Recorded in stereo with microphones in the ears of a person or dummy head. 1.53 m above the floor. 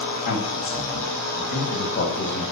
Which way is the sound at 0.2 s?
45° left (ahead or behind).